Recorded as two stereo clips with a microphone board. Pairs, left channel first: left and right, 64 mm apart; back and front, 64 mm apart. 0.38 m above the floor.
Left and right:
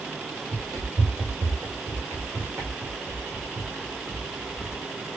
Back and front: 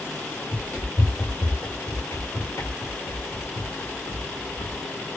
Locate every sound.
0.5 s running footsteps: 105° right, 2.5 m; by 4.8 s 175° right, 1.7 m